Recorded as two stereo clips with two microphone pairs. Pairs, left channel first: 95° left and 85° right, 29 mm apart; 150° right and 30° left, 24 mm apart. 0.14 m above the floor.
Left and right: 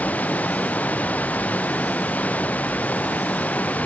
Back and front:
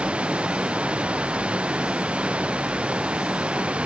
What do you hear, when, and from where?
0.0 s running water: 70° left